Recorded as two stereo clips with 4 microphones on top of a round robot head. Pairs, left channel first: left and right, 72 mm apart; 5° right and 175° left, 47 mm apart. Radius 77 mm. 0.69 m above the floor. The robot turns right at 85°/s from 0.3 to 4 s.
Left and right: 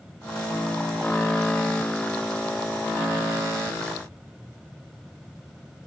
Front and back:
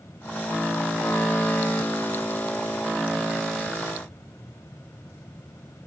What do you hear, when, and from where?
Only background noise.